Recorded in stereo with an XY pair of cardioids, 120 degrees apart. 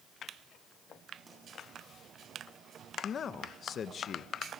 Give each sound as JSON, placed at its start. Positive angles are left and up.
{"t": 1.3, "sound": "a pop", "azimuth_deg": -25, "distance_m": 10.0}
{"t": 3.0, "sound": "a man speaking", "azimuth_deg": 45, "distance_m": 1.0}